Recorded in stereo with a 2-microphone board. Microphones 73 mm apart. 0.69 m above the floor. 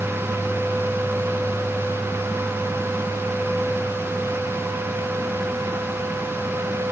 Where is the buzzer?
I don't hear a buzzer.